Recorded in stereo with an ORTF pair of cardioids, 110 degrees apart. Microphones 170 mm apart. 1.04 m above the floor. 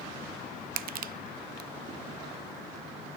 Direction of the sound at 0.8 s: 55° right.